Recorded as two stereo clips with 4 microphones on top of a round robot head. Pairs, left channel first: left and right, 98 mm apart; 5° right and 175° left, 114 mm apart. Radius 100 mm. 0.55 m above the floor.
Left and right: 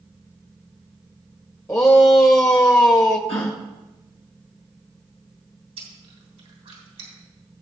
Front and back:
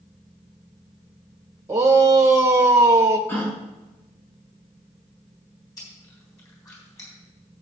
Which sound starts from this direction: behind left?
A shout, at 1.7 s.